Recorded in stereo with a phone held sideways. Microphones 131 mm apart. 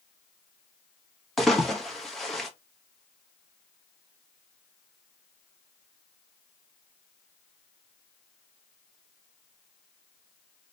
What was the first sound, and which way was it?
A splash, centre (ahead or behind).